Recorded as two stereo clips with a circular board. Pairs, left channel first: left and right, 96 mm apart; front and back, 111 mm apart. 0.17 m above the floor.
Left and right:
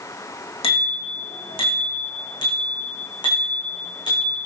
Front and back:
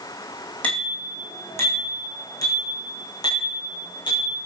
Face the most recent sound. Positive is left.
turn(degrees=45)